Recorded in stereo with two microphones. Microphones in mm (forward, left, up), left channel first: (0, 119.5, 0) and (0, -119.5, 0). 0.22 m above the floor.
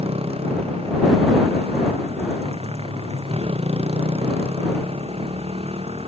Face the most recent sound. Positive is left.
turn(degrees=-25)  # may be behind; listen again after turning